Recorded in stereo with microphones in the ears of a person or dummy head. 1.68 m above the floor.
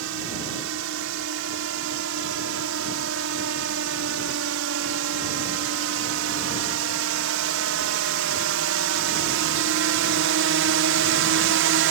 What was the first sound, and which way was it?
A drone, 75° right (ahead or behind).